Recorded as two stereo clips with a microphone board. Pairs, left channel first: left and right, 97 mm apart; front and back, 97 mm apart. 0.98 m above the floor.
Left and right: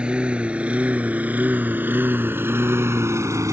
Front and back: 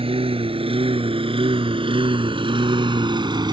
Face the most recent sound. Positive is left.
turn(degrees=-145)